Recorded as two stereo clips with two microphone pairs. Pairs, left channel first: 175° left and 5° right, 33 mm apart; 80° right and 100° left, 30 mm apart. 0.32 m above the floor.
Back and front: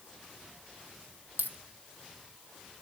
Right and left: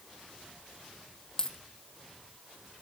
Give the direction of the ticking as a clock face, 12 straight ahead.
No ticking in this recording.